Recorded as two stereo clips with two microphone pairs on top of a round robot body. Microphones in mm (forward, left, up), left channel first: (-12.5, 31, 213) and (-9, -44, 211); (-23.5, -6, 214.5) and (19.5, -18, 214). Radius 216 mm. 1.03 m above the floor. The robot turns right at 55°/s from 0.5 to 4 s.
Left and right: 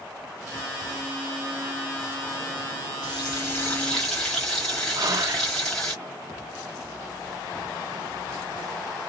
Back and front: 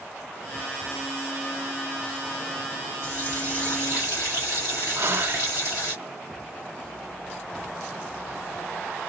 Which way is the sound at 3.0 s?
125° left.